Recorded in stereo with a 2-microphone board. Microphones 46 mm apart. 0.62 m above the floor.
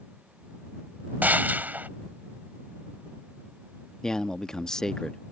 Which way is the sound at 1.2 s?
40° right (ahead or behind).